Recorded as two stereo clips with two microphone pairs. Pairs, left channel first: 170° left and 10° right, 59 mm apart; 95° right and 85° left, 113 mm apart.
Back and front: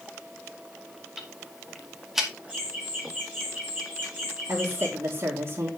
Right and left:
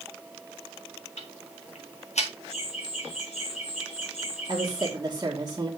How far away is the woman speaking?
About 1.9 m.